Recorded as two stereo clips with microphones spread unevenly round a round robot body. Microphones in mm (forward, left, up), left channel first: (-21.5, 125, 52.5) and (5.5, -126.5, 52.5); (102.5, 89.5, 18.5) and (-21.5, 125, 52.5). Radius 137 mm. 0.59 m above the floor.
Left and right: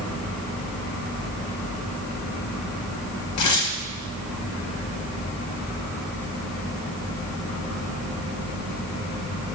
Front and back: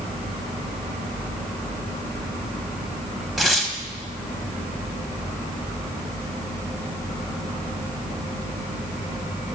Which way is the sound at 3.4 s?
75° left.